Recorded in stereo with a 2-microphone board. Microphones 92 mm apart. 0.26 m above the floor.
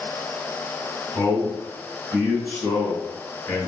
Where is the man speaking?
25° left (ahead or behind), 1.8 m.